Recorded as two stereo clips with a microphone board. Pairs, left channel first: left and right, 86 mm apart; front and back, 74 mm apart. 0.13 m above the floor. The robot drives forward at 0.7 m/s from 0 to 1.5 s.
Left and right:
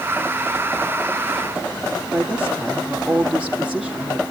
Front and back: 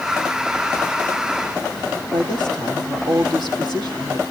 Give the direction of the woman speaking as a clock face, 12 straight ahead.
6 o'clock.